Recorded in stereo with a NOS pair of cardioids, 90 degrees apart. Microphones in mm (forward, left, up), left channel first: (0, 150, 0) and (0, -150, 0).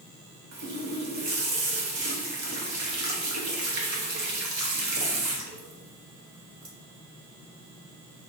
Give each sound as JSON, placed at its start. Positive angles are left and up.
{"t": 0.5, "sound": "a running tap", "azimuth_deg": -70, "distance_m": 1.1}